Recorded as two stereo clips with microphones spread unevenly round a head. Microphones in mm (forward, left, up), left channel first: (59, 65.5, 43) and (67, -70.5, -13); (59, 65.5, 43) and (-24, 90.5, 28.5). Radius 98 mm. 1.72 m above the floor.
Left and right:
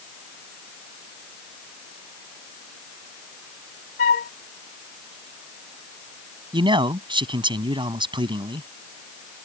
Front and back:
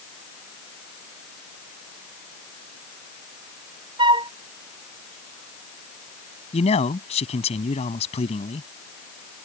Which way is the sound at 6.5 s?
25° right.